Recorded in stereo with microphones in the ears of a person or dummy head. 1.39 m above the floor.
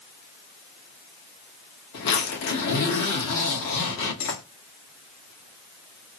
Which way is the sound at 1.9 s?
65° left (ahead or behind).